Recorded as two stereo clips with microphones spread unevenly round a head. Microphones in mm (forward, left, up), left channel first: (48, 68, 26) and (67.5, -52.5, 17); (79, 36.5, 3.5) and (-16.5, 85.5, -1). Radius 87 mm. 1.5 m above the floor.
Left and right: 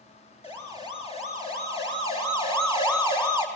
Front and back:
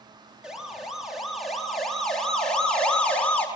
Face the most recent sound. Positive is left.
turn(degrees=50)